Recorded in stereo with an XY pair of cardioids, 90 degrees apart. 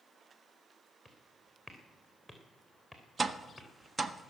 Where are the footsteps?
5° right, 3.5 m.